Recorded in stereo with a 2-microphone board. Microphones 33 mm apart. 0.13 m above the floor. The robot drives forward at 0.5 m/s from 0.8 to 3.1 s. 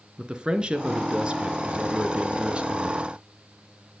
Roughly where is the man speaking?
Right.